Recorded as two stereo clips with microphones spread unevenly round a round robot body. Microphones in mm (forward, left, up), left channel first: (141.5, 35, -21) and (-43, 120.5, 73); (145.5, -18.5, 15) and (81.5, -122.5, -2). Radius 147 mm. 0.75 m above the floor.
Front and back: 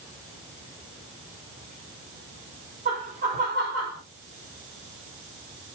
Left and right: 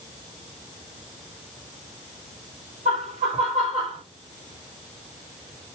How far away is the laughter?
About 2 m.